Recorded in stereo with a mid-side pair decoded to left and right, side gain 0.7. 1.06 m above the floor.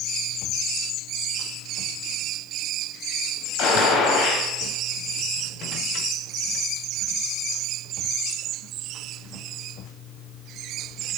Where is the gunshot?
60° left, 5 m.